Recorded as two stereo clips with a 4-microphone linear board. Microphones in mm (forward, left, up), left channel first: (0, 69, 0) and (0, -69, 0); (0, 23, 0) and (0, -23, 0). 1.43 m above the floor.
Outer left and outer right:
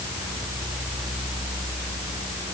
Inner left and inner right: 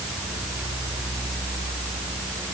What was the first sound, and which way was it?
Only background noise.